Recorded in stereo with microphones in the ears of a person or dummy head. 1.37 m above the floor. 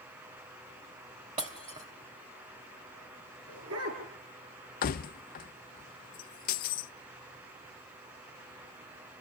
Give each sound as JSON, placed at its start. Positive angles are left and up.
{"t": 1.4, "sound": "breaking glass", "side_deg": -25, "distance_m": 3.0}
{"t": 3.5, "sound": "a dog barking", "side_deg": -80, "distance_m": 8.5}
{"t": 4.8, "sound": "keys jangling", "side_deg": 45, "distance_m": 0.6}